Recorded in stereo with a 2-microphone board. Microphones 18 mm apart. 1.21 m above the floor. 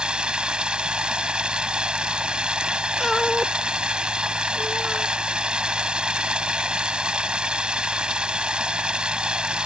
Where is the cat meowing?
5° left (ahead or behind).